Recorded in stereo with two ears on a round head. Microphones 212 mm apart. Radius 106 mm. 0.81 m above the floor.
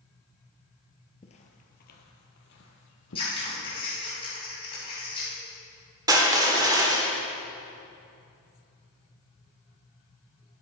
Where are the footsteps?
30° left (ahead or behind), 0.9 m; by 3.9 s 65° left (ahead or behind), 1.9 m.